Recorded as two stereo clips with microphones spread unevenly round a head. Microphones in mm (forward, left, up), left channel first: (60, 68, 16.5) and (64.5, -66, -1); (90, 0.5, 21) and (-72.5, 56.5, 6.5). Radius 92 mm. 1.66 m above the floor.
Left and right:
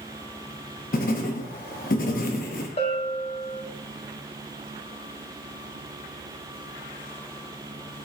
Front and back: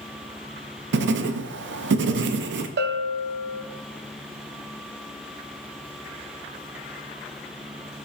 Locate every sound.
0.9 s writing: 140° left, 0.6 m
2.8 s a bell: 140° left, 0.7 m